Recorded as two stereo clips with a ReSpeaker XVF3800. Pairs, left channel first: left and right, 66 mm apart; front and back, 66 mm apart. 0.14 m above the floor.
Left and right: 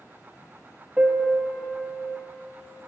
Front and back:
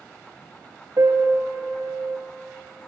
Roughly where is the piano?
Behind.